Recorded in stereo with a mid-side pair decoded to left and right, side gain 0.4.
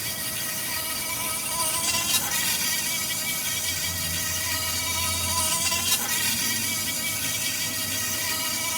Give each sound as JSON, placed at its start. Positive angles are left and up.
{"t": 0.0, "sound": "an insect", "azimuth_deg": 0}